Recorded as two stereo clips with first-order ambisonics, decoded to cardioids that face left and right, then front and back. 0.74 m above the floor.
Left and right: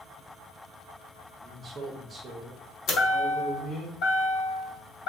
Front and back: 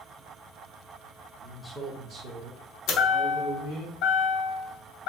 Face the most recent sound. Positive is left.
turn(degrees=40)